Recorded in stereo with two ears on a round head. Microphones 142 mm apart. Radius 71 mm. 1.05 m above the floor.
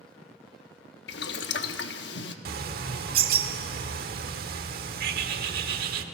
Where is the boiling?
80° left, 1.2 m.